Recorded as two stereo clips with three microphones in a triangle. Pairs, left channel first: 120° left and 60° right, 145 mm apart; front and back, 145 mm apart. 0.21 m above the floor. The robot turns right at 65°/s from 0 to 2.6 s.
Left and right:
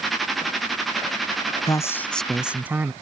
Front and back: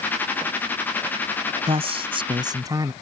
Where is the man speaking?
170° left; by 2.9 s 130° right.